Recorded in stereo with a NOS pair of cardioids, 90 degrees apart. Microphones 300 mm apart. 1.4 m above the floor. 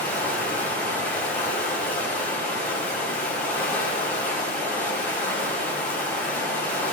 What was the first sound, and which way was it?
Running water, 5° left.